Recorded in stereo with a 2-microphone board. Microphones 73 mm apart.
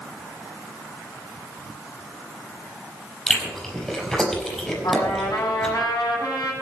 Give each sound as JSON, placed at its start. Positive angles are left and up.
{"t": 3.3, "sound": "chewing", "side_deg": 5, "distance_m": 5.0}
{"t": 4.8, "sound": "a trumpet", "side_deg": 75, "distance_m": 7.0}